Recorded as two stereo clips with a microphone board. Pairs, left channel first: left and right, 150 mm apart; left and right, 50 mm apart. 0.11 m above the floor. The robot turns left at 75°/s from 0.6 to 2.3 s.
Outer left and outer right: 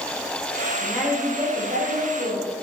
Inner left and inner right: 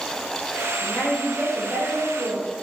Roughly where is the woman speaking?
Ahead.